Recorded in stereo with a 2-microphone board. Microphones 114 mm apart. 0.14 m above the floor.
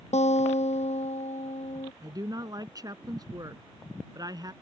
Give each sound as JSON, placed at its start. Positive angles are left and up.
{"t": 0.1, "sound": "a guitar", "side_deg": 75}
{"t": 2.0, "sound": "a woman speaking", "side_deg": -35}